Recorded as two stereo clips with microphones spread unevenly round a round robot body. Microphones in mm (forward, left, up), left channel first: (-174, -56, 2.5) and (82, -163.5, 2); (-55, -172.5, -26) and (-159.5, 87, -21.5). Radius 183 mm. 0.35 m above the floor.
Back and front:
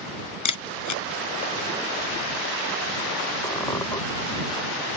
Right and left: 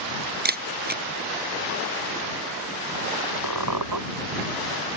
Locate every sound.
0.5 s a camera shutter: 165° left
3.4 s a squeak: 75° left